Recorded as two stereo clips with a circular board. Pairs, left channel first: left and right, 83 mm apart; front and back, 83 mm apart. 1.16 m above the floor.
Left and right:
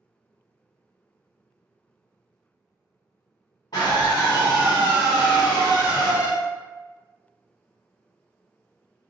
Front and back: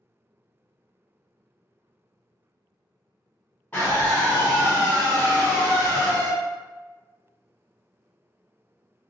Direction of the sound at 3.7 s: 60° left.